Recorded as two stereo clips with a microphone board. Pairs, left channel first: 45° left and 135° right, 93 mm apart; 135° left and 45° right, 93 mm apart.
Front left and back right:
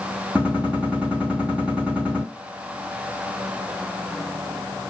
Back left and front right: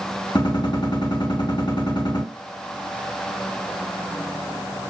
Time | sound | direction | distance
0.3 | a gunshot | 150° left | 2.5 m